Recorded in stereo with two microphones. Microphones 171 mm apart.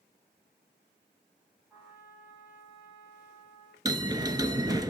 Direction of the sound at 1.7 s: 5° right (ahead or behind).